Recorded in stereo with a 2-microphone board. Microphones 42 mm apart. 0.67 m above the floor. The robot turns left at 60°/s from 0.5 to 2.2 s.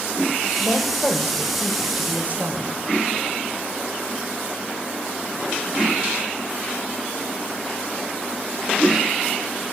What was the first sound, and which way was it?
A woman speaking, 55° left.